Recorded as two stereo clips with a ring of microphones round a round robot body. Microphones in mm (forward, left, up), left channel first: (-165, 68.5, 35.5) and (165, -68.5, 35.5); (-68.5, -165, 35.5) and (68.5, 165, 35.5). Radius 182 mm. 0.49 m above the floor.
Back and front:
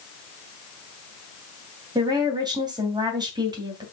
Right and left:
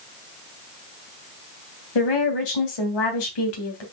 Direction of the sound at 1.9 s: 100° right.